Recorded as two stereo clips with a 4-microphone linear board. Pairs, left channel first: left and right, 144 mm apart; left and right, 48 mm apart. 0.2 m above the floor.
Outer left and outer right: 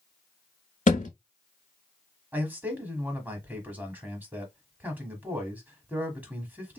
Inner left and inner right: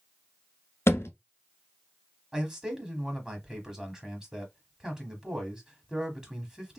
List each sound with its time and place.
0.9 s a thud: 65° left (ahead or behind), 0.7 m
2.3 s a man speaking: 15° right (ahead or behind), 1.0 m